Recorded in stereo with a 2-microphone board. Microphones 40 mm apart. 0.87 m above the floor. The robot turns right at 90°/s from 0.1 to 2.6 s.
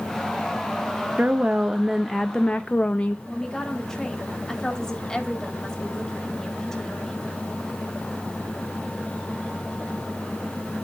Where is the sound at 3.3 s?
10° left (ahead or behind), 2 m.